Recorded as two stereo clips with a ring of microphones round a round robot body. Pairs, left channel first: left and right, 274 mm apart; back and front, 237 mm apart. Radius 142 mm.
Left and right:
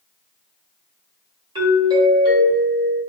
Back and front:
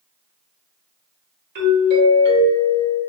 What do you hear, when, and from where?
1.6 s a doorbell: 20° right, 1.7 m